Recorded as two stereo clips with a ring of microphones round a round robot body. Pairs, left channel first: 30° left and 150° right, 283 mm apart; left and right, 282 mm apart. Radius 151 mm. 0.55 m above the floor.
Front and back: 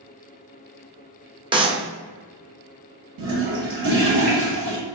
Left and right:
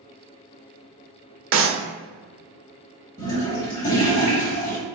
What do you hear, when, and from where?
1.5 s a clap: 85° right, 0.6 m
3.2 s a toilet flushing: 165° left, 1.7 m